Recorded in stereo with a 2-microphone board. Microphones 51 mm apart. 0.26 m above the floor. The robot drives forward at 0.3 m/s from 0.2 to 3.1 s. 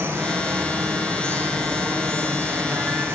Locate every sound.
0.0 s running water: 60° right (ahead or behind), 8.5 m; by 3.1 s 55° right (ahead or behind), 9 m